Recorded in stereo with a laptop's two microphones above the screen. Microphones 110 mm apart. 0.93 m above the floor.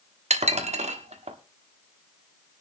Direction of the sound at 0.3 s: 90° right.